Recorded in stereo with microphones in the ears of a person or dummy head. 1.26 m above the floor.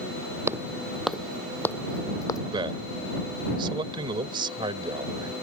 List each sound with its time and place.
0.5 s footsteps: 10° right (ahead or behind); by 2.4 s 25° left (ahead or behind)
2.5 s a man speaking: 20° right (ahead or behind)